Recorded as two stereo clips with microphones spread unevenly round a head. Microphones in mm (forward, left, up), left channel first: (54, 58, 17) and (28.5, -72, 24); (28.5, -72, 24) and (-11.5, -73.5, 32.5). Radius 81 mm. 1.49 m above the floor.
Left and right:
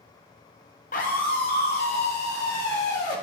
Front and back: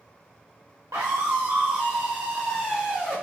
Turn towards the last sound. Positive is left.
turn(degrees=95)